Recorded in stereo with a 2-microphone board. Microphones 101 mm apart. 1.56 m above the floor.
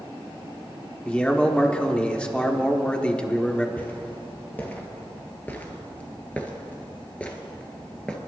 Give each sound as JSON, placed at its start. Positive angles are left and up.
{"t": 1.1, "sound": "a man speaking", "side_deg": 15, "distance_m": 1.2}
{"t": 3.8, "sound": "footsteps", "side_deg": 15, "distance_m": 2.5}